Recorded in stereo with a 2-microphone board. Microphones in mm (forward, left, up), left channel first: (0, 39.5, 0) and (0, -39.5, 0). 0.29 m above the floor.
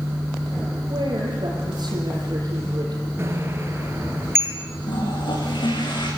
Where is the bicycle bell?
30° right (ahead or behind), 3.5 m.